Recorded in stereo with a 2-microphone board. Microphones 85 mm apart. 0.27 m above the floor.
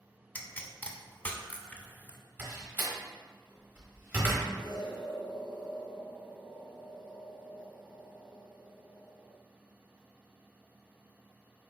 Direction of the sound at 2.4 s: 25° right (ahead or behind).